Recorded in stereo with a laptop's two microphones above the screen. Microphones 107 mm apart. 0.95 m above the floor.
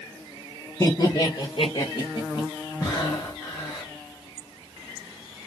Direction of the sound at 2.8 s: 35° left (ahead or behind).